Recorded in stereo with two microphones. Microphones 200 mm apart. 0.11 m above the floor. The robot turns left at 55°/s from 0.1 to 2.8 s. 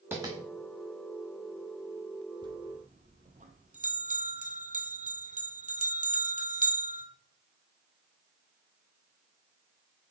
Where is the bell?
20° right (ahead or behind), 1.3 m; by 7.0 s 40° right (ahead or behind), 1.3 m.